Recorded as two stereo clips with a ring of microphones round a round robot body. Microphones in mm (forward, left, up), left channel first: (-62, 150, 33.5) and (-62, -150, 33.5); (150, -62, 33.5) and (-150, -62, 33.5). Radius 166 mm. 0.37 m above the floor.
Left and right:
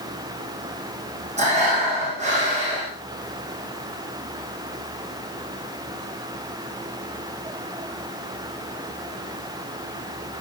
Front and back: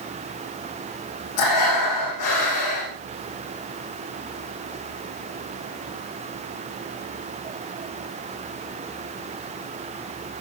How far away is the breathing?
About 8.5 m.